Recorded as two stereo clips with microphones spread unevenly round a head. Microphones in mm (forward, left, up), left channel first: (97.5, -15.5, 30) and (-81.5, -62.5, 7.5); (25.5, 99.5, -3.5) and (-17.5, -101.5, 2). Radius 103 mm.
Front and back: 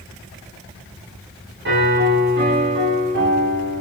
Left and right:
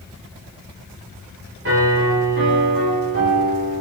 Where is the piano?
140° right, 5 m.